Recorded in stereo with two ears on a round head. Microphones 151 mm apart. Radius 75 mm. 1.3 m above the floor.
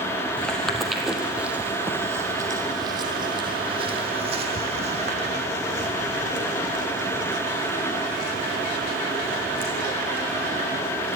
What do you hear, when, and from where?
0.4 s footsteps: 5° left (ahead or behind), 2.5 m; by 11.2 s 65° right (ahead or behind), 7 m